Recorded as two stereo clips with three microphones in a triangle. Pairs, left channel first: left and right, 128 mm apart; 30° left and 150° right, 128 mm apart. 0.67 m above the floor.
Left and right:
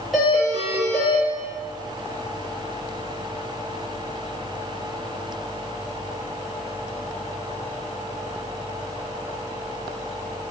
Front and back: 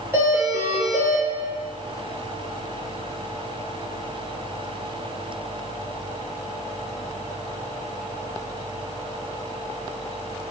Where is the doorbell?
170° right, 1.0 m.